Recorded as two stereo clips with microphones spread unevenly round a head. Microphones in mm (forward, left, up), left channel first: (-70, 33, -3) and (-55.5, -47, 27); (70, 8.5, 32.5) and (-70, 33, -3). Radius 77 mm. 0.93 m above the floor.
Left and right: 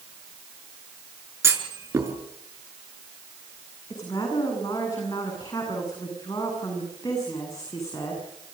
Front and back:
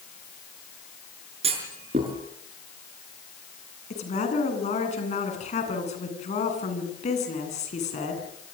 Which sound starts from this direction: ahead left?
A woman speaking, at 3.9 s.